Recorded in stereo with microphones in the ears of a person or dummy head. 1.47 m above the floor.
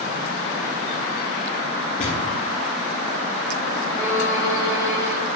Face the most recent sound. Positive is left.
turn(degrees=10)  # may be behind; listen again after turning